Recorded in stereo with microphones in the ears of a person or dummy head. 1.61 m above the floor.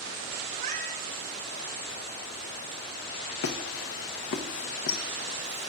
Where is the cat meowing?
45° right (ahead or behind), 1.6 m.